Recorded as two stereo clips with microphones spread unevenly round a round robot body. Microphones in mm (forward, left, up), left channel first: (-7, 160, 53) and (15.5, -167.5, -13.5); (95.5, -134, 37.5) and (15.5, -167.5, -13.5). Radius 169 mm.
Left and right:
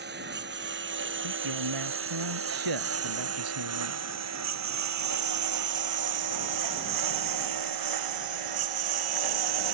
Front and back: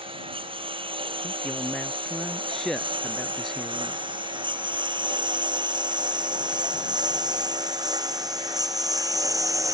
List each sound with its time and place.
0.0 s a lawn mower: 145° right; by 9.7 s 105° right
1.2 s a man speaking: 60° right